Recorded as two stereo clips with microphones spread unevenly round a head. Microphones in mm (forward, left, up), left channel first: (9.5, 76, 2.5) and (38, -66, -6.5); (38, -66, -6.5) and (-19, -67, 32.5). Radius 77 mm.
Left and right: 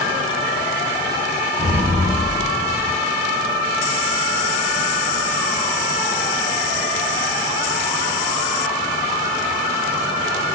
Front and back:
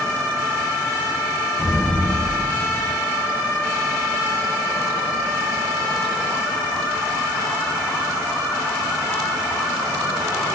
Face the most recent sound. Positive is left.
turn(degrees=155)